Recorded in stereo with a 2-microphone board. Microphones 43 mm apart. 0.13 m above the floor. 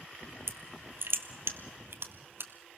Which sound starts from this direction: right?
Crushing, at 0.5 s.